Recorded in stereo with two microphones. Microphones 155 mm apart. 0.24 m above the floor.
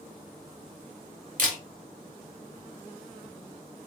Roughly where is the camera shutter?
Right.